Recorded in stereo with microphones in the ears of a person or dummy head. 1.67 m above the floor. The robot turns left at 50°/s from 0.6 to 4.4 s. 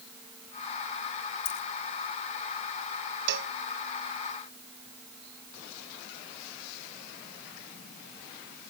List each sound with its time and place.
1.4 s a dropped coin: 70° left (ahead or behind)
3.3 s a cowbell: 65° right (ahead or behind); by 3.5 s 55° right (ahead or behind)